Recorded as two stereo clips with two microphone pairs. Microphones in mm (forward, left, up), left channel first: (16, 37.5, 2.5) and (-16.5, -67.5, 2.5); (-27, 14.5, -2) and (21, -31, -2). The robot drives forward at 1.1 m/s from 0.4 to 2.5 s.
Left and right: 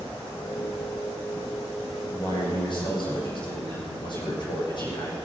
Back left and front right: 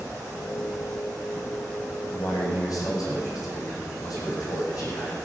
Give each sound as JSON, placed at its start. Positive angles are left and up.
{"t": 2.1, "sound": "a man speaking", "azimuth_deg": 110, "distance_m": 6.5}